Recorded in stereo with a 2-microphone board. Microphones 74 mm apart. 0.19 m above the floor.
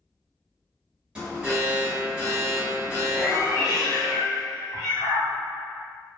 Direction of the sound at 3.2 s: 60° left (ahead or behind).